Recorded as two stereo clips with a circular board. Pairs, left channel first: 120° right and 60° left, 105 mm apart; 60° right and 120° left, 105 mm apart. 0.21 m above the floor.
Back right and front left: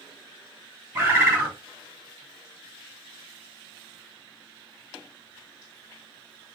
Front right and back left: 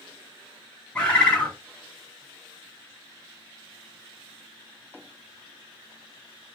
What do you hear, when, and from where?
0.9 s a bird: 10° left, 2 m